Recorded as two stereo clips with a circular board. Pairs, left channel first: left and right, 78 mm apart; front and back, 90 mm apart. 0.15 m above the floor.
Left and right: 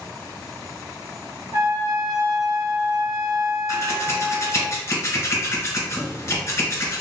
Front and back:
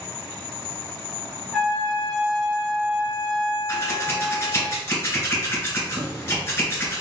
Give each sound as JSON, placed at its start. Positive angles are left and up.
{"t": 1.5, "sound": "a trumpet", "azimuth_deg": -80, "distance_m": 1.8}
{"t": 3.7, "sound": "scissors", "azimuth_deg": 50, "distance_m": 1.6}